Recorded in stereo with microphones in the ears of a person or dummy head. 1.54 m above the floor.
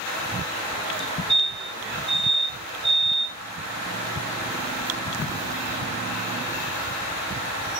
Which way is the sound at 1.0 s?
Centre (ahead or behind).